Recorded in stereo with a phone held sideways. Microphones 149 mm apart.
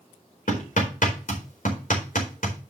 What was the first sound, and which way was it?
Hammering, 75° left (ahead or behind).